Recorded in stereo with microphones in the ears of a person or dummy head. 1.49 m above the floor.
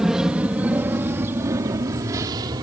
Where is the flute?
I don't hear a flute.